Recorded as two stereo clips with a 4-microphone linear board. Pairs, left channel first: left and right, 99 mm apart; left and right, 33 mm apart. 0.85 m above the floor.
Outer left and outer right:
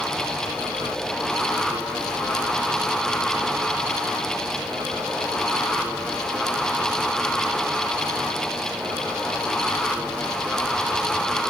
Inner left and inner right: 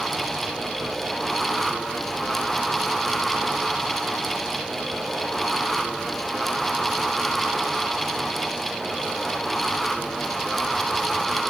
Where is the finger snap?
No finger snap in this recording.